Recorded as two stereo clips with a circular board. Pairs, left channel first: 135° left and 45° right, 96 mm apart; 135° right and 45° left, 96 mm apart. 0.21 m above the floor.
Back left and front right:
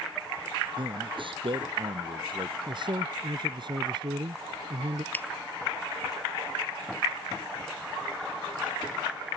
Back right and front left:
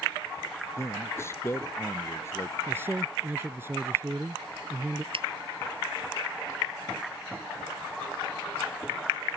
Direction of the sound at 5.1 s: 65° left.